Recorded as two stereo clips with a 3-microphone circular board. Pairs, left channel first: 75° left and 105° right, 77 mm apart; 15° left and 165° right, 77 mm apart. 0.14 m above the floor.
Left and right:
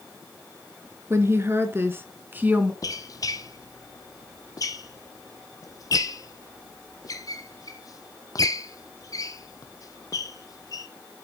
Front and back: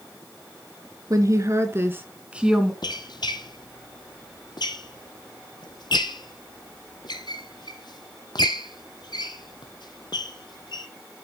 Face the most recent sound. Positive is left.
turn(degrees=35)